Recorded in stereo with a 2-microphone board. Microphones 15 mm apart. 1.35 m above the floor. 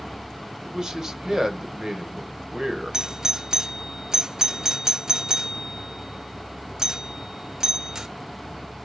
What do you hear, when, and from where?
0.6 s a man speaking: 35° right (ahead or behind), 1.3 m
2.9 s a doorbell: 45° right (ahead or behind), 0.5 m